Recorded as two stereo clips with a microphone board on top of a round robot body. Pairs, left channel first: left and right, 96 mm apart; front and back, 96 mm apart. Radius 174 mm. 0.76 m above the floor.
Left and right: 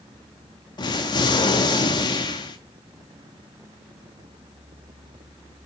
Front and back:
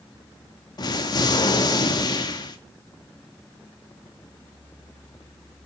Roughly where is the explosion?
Ahead left.